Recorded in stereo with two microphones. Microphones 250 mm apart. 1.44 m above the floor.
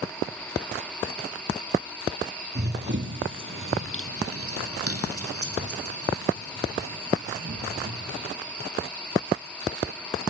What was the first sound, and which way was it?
Running footsteps, 40° right (ahead or behind).